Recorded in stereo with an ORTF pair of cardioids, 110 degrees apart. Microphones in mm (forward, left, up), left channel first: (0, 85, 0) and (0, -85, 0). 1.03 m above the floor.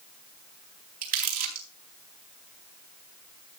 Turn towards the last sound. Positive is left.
turn(degrees=-60)